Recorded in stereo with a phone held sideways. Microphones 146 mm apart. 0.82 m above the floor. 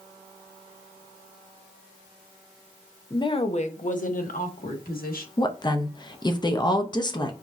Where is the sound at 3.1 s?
25° left (ahead or behind), 0.6 m; by 5.3 s 75° left (ahead or behind), 1.7 m.